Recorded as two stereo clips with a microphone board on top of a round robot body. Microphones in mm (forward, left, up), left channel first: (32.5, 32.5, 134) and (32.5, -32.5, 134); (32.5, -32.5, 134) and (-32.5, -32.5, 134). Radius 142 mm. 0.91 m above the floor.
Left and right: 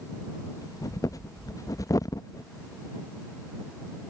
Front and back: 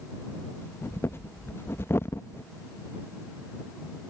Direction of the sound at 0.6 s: 55° left.